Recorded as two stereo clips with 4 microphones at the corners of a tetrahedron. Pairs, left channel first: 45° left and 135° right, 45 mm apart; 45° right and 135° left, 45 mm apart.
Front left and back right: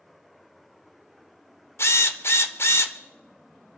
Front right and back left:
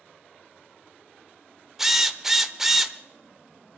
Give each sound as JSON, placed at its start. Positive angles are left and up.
{"t": 1.8, "sound": "a drill", "azimuth_deg": 55, "distance_m": 1.2}